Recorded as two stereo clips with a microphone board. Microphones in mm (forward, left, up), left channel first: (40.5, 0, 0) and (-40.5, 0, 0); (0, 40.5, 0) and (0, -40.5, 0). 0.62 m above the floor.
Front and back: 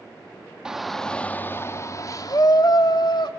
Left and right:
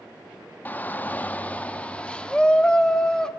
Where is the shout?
110° left, 0.7 m; by 3.3 s 10° left, 1.4 m.